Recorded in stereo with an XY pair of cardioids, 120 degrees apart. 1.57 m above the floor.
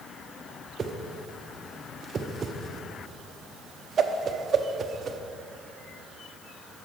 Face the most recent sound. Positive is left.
turn(degrees=-40)